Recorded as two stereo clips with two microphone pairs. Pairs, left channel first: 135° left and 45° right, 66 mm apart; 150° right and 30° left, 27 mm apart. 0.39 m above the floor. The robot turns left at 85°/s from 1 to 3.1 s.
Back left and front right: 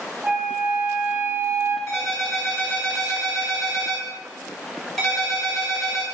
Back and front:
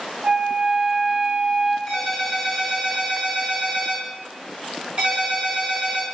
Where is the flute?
20° left, 0.5 m; by 1.8 s 40° right, 0.5 m.